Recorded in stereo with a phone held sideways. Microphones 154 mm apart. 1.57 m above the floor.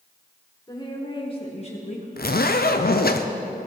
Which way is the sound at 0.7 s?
25° left (ahead or behind).